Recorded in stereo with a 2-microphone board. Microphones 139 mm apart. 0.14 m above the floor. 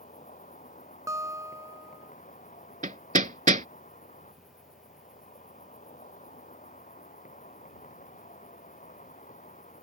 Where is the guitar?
25° right (ahead or behind).